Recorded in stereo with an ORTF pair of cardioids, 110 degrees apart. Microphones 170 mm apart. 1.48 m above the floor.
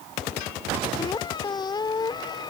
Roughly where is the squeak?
Ahead left.